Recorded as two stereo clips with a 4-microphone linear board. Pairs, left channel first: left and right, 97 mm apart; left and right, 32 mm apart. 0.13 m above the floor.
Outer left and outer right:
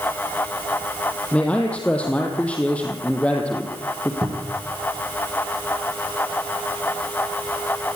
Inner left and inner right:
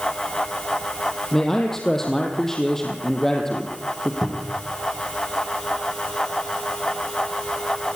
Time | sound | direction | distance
1.3 | a man speaking | 10° left (ahead or behind) | 4 m
4.2 | a cupboard door | 45° right (ahead or behind) | 6 m